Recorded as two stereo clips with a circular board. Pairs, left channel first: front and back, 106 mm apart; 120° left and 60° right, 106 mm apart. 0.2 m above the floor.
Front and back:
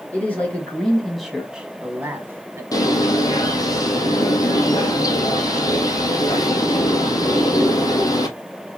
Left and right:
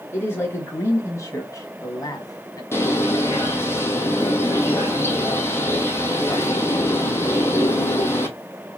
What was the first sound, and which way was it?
A man speaking, 65° left.